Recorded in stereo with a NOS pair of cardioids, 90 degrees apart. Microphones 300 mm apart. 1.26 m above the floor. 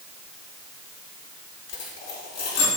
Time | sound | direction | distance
1.7 | a dropped coin | 60° left | 1.9 m